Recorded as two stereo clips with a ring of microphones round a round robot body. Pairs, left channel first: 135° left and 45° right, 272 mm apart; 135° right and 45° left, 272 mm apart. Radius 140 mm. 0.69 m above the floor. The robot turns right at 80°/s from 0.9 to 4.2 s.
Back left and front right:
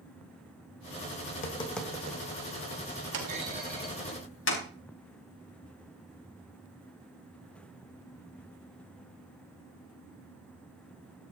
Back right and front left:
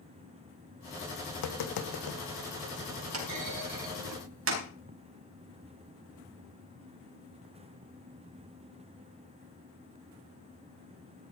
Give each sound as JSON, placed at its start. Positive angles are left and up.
{"t": 1.3, "sound": "tapping", "azimuth_deg": -175, "distance_m": 2.0}
{"t": 3.1, "sound": "a clunk", "azimuth_deg": 5, "distance_m": 4.5}